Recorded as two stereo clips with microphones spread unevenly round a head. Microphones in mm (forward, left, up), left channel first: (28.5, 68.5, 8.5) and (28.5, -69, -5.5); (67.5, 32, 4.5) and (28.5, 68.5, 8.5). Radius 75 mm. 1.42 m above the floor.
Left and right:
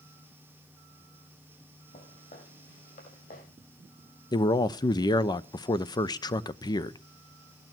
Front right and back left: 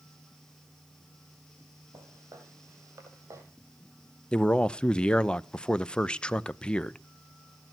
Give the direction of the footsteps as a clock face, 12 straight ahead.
8 o'clock.